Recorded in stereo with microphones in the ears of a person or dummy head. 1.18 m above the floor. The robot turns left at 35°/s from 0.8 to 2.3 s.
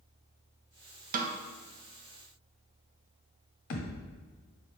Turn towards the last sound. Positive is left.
turn(degrees=50)  # may be behind; listen again after turning